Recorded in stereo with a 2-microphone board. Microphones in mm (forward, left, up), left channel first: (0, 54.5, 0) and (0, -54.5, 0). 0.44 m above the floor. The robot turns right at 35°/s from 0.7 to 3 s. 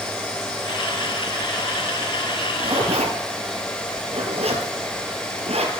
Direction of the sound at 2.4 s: 55° right (ahead or behind).